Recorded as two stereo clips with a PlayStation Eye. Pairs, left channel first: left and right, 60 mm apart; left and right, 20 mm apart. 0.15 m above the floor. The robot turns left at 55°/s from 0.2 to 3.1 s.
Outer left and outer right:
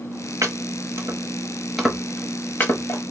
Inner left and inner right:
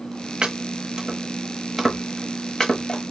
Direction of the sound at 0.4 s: 60° right (ahead or behind).